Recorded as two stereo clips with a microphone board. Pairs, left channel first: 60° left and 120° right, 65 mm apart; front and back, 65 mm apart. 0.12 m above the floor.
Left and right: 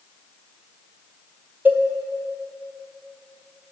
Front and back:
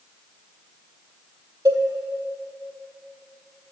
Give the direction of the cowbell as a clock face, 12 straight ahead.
6 o'clock.